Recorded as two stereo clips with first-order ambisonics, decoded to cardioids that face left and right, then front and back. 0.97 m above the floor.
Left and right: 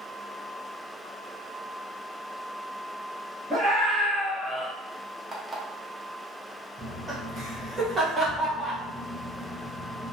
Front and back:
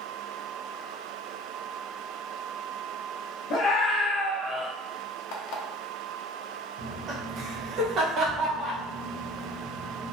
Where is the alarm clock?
10° right, 0.5 m.